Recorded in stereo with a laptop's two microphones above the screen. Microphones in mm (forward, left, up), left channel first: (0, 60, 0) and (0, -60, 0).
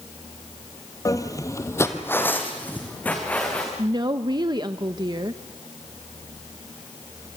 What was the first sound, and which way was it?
Footsteps, 25° left (ahead or behind).